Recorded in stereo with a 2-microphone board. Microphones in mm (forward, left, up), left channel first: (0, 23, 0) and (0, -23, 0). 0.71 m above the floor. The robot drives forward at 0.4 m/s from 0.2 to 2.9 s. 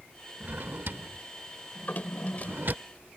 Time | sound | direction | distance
0.4 | a drawer | 45° right (ahead or behind) | ?
1.8 | a drawer | 45° left (ahead or behind) | ?